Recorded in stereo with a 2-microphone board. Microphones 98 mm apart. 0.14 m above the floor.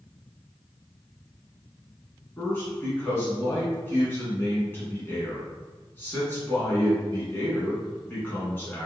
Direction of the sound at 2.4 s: 20° left (ahead or behind).